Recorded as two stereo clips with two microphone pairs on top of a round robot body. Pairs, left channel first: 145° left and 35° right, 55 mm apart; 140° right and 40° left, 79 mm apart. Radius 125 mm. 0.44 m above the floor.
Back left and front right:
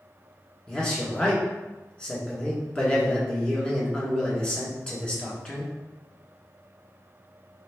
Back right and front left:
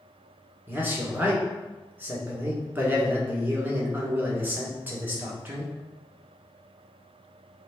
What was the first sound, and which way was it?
A man speaking, 70° left.